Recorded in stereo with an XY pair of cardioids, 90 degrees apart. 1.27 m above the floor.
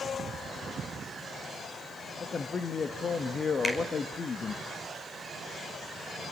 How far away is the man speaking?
About 1.5 m.